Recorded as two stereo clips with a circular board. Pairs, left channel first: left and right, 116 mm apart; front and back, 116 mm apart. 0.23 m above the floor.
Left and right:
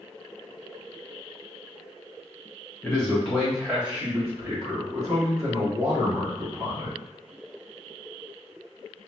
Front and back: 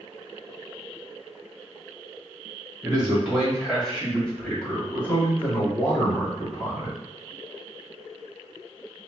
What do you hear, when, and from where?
2.8 s a man speaking: 135° left, 1.5 m; by 7.0 s 55° right, 3 m